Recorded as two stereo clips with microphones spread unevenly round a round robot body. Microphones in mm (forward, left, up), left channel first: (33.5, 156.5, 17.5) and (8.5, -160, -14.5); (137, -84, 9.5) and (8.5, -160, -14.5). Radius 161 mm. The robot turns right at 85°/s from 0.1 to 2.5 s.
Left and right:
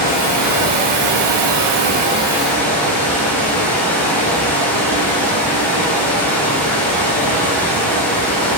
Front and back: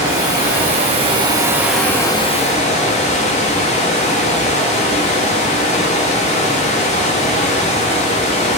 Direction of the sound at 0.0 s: 150° left.